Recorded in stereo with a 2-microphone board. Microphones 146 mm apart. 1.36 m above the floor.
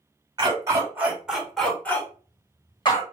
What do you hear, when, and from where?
0.4 s a dog barking: 25° right (ahead or behind), 1.2 m; by 3.0 s 35° left (ahead or behind), 1.3 m